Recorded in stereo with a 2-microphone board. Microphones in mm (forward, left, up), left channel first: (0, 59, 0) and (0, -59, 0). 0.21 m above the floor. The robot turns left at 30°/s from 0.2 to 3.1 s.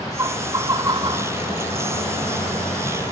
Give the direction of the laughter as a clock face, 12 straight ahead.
1 o'clock.